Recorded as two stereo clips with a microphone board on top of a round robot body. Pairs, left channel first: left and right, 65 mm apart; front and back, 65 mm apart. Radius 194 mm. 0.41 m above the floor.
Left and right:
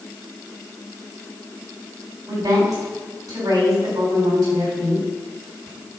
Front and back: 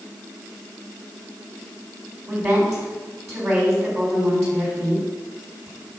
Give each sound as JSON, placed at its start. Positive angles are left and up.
{"t": 2.3, "sound": "a woman speaking", "azimuth_deg": -130, "distance_m": 3.0}